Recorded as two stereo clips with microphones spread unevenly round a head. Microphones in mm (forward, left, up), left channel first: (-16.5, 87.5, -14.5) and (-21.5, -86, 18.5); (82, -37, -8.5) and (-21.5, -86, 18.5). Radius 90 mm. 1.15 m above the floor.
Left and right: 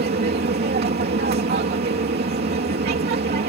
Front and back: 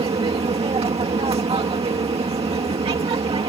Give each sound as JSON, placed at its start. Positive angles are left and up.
{"t": 0.0, "sound": "an aircraft", "azimuth_deg": -120}